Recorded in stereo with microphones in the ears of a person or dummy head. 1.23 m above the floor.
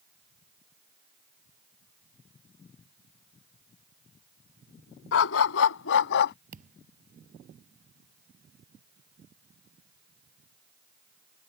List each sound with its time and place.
5.1 s a dog barking: 65° left (ahead or behind); by 6.3 s 50° left (ahead or behind)
6.5 s a thud: 40° right (ahead or behind)